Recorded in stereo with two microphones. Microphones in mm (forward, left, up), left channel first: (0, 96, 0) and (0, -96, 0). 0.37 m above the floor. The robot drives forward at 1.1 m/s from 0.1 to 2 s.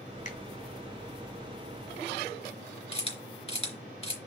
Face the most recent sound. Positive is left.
turn(degrees=30)  # may be behind; listen again after turning